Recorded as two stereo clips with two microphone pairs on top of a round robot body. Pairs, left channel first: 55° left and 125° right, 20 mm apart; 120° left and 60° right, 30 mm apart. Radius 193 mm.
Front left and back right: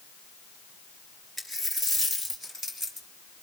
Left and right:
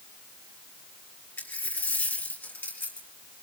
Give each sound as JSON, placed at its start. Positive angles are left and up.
{"t": 1.4, "sound": "a dropped coin", "azimuth_deg": 135, "distance_m": 4.5}